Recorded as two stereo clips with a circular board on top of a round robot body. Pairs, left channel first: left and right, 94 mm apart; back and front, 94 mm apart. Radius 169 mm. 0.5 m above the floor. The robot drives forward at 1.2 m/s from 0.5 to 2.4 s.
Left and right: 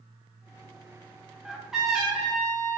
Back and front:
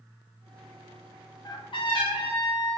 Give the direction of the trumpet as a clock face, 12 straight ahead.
6 o'clock.